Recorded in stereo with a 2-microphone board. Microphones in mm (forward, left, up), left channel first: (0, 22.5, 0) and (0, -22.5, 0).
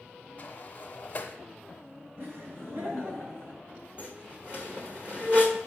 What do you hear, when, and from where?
0.4 s a sliding door: 35° left (ahead or behind), 0.8 m
2.2 s laughter: 50° right (ahead or behind), 2.5 m
4.0 s a squeak: 25° right (ahead or behind), 0.9 m